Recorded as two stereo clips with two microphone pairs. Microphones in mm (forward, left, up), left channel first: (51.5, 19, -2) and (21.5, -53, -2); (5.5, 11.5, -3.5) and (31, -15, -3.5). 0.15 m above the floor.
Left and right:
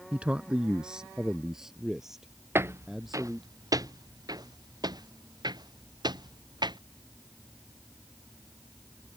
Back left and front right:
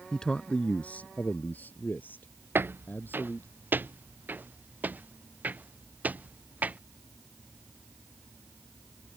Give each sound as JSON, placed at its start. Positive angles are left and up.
{"t": 0.1, "sound": "a man speaking", "azimuth_deg": -170}
{"t": 2.5, "sound": "footsteps", "azimuth_deg": -55}